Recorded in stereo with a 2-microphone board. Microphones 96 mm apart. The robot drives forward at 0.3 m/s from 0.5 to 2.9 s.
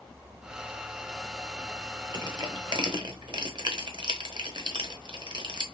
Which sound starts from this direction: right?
Crushing, at 2.1 s.